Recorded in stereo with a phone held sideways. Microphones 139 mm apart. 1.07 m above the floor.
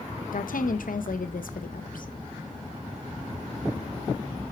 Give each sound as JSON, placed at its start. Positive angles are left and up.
{"t": 0.3, "sound": "a woman speaking", "side_deg": 75, "distance_m": 0.9}